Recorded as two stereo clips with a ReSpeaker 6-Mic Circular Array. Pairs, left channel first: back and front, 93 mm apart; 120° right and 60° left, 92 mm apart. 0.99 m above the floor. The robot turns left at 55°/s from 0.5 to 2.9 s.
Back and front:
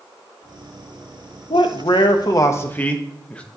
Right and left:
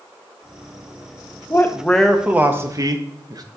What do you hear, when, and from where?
1.5 s a man speaking: straight behind, 0.8 m; by 3.4 s 105° left, 0.8 m